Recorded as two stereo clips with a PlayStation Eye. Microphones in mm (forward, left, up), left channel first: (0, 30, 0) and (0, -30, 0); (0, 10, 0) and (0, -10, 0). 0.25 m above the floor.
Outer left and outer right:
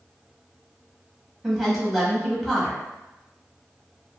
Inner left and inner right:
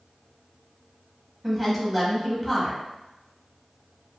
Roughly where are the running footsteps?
No running footsteps in this recording.